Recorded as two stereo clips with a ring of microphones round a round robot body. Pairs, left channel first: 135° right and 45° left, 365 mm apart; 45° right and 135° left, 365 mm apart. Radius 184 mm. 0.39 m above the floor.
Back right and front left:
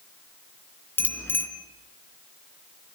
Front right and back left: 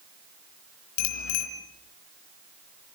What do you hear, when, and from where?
1.0 s a bicycle bell: 50° right, 3.5 m